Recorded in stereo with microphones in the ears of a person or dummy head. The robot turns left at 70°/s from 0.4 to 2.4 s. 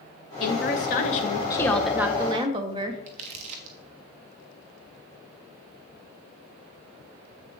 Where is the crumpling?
45° right (ahead or behind), 1.0 m.